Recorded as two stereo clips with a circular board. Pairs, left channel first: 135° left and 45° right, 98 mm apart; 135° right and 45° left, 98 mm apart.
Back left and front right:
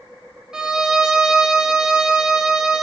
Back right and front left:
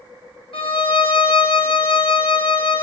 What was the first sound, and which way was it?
A violin, 125° right.